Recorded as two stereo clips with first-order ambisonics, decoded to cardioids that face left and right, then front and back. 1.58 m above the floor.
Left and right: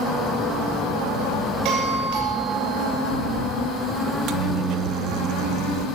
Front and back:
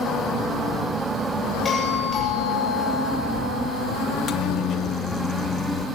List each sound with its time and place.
1.6 s a doorbell: 70° right, 9 m
4.1 s a microwave: 55° right, 1.3 m